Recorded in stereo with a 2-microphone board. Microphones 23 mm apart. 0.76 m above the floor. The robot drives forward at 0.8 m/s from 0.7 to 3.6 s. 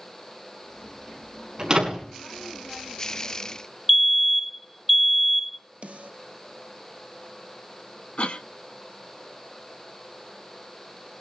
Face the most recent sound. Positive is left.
turn(degrees=60)  # may be behind; listen again after turning